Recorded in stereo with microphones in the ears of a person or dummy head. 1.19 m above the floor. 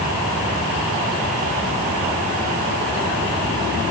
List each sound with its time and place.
Only background noise.